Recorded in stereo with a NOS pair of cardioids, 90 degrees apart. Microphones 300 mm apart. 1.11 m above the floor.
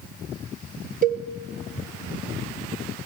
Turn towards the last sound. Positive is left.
turn(degrees=-30)